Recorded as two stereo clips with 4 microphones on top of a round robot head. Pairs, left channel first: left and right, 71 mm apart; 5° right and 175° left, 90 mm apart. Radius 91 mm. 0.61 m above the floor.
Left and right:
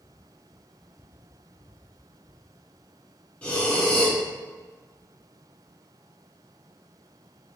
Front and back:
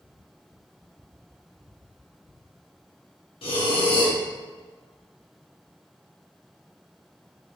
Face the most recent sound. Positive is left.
turn(degrees=15)